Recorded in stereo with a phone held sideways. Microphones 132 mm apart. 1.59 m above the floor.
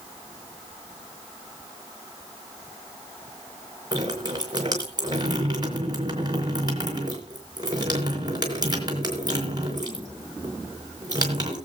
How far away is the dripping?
About 4 m.